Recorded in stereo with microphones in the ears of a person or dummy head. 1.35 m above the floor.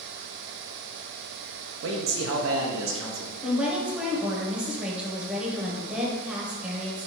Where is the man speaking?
65° right (ahead or behind), 0.5 m.